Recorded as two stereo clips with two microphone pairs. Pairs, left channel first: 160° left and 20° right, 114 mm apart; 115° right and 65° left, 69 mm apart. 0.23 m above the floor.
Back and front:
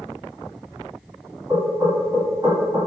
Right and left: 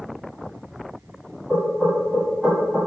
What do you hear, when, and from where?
1.5 s knocking: 15° right, 1.4 m